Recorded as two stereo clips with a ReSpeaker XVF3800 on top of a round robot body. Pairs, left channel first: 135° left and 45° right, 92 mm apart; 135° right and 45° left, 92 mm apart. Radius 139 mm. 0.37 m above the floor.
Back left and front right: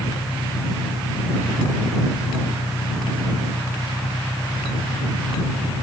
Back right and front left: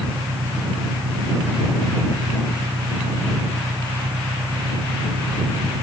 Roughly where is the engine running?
Ahead left.